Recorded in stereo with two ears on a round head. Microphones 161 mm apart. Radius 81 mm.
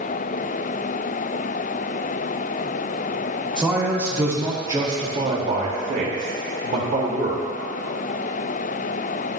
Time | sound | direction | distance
3.6 | a man speaking | 5° right (ahead or behind) | 2 m